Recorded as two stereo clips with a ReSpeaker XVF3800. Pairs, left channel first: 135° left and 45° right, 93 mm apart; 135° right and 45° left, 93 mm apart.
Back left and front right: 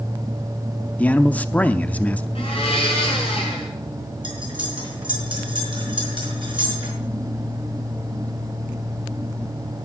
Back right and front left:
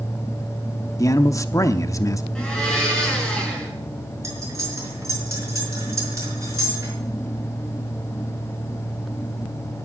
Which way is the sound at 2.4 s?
145° left.